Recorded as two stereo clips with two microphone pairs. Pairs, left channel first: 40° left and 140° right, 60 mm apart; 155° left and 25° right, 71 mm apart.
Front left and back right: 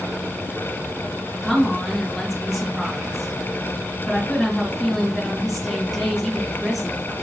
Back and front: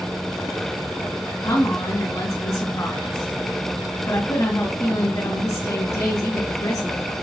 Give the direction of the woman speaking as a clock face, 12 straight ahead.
8 o'clock.